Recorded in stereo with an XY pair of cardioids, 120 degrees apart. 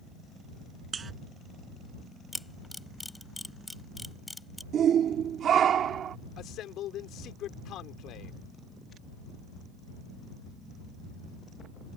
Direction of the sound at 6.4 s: 70° left.